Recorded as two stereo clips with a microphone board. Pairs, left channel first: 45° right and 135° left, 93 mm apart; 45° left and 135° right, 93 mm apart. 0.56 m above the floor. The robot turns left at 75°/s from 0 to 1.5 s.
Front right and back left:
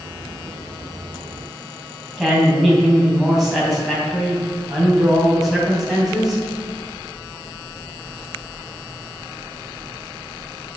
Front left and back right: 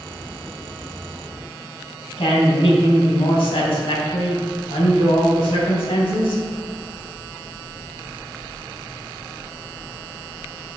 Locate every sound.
2.2 s a woman speaking: 45° left, 3 m